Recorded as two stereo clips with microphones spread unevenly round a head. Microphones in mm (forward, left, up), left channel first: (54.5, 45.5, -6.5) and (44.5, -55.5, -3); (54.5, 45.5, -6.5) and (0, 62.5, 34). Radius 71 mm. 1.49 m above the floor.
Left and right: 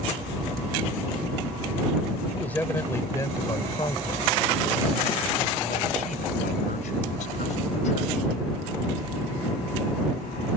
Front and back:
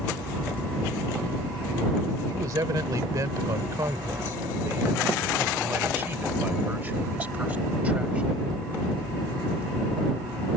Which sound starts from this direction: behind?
A man speaking, at 2.3 s.